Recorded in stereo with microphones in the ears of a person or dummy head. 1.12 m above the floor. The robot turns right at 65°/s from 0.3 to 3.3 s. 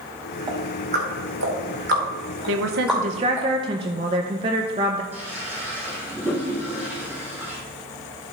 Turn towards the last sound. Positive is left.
turn(degrees=-10)  # may be behind; listen again after turning